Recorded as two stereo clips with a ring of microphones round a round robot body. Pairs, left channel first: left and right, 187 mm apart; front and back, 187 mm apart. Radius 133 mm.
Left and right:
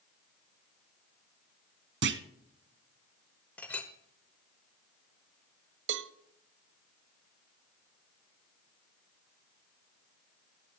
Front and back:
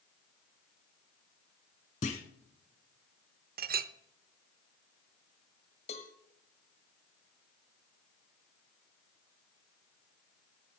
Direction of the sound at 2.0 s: 65° right.